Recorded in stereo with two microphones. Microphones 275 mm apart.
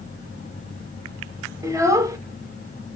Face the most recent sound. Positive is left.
turn(degrees=-10)  # may be behind; listen again after turning